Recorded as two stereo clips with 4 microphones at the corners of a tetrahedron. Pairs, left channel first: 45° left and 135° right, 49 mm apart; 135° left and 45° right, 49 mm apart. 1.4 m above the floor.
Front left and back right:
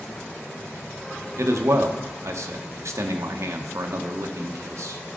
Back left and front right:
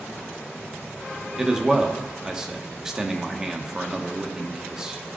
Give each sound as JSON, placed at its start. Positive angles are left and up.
{"t": 1.4, "sound": "a man speaking", "azimuth_deg": -125, "distance_m": 0.9}